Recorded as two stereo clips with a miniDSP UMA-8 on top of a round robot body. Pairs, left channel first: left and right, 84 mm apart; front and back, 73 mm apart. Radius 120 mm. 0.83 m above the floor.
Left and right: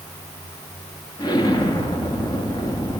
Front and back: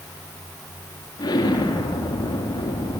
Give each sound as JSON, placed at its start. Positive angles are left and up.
{"t": 1.2, "sound": "an explosion", "azimuth_deg": 45, "distance_m": 2.5}